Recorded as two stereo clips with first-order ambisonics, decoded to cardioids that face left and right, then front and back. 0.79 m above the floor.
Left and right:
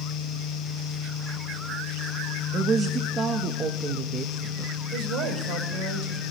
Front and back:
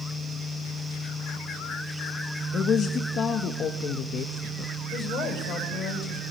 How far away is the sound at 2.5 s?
About 0.6 m.